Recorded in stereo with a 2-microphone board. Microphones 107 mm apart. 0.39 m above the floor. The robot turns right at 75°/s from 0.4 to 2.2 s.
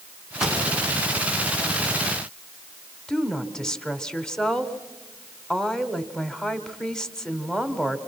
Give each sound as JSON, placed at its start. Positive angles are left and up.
{"t": 0.4, "sound": "a pop", "side_deg": -5, "distance_m": 3.5}
{"t": 3.1, "sound": "a woman speaking", "side_deg": 5, "distance_m": 1.4}